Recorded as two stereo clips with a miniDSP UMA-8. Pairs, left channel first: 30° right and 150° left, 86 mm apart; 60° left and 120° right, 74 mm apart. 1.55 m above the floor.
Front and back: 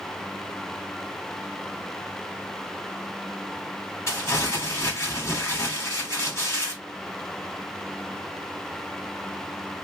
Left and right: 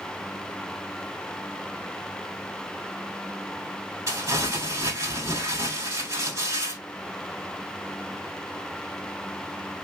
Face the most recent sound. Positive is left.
turn(degrees=-85)